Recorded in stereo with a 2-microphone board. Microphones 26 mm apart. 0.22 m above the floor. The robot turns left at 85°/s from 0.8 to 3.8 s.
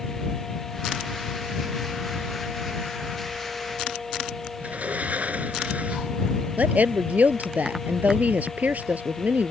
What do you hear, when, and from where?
4.6 s a sliding door: 65° right (ahead or behind)
6.6 s a woman speaking: 75° right (ahead or behind)